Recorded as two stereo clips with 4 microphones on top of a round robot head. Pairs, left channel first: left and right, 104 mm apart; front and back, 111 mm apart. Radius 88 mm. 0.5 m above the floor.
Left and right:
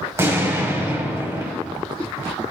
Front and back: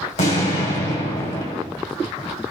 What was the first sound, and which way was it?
An explosion, 30° right.